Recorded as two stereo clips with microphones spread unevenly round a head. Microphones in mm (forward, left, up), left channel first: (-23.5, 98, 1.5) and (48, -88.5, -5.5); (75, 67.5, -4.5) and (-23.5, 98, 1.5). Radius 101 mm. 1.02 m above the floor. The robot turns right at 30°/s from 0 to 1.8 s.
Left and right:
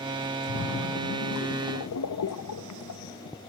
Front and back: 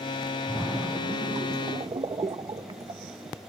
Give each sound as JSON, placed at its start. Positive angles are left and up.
{"t": 0.5, "sound": "a splash", "azimuth_deg": 80, "distance_m": 0.7}